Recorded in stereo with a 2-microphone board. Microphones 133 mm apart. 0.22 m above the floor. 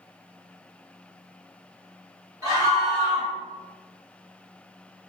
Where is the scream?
30° right (ahead or behind), 1.8 m.